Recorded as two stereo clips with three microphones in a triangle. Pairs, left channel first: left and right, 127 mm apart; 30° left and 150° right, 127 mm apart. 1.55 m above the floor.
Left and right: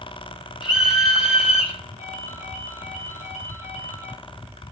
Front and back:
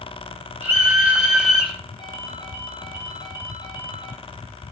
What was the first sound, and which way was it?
A scream, 140° left.